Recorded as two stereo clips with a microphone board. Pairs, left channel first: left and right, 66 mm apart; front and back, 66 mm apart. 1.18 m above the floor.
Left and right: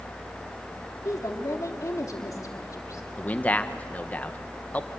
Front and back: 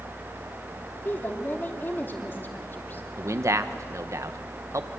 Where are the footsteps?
No footsteps in this recording.